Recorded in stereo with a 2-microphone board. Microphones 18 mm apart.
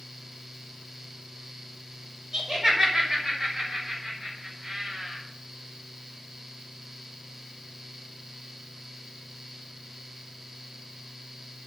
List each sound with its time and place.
2.3 s laughter: 35° right (ahead or behind), 2 m; by 5.2 s 45° right (ahead or behind), 4.5 m